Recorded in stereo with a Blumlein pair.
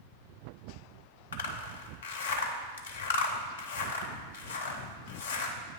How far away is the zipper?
About 0.7 m.